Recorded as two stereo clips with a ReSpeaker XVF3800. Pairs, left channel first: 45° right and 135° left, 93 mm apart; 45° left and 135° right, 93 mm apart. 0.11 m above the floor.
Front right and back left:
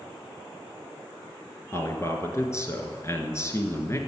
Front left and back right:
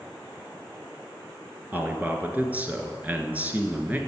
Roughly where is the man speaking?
Right.